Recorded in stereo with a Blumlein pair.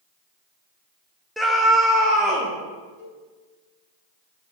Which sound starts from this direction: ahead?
A scream, at 1.4 s.